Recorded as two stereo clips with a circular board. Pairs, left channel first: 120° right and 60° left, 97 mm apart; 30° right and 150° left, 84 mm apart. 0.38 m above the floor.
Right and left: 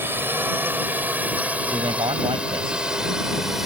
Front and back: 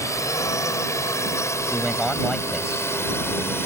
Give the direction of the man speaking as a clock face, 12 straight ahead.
10 o'clock.